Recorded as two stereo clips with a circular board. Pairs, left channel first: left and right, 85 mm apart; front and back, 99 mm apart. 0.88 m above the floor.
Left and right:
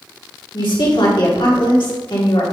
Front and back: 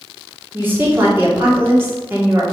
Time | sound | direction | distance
0.5 | a woman speaking | 115° left | 2.5 m